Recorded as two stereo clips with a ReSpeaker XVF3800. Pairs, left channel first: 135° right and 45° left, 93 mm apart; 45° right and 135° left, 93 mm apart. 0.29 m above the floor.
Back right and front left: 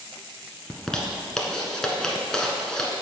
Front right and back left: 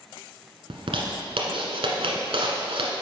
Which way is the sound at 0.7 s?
140° left.